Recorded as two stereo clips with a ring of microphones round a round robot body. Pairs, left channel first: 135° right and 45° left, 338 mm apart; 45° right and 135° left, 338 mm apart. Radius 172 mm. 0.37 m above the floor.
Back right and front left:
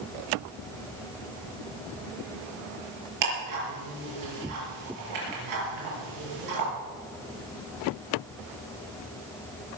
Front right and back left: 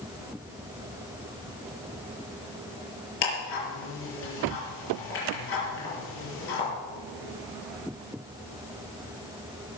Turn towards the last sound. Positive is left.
turn(degrees=10)